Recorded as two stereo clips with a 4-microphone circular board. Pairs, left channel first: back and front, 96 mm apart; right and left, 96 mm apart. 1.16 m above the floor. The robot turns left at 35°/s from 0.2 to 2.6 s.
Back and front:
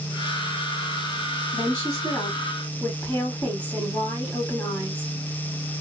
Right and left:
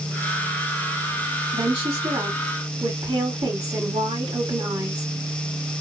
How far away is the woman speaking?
About 1.6 m.